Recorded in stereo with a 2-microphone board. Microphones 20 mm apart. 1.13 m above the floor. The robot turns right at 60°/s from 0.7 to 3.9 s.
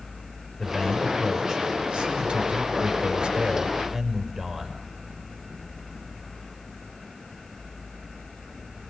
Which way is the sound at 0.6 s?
160° left.